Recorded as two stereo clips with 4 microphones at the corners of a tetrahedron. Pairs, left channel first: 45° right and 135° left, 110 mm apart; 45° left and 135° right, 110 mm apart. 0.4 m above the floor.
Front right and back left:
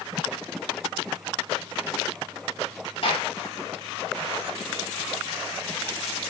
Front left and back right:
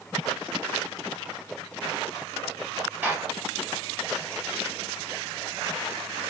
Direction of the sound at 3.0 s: 65° right.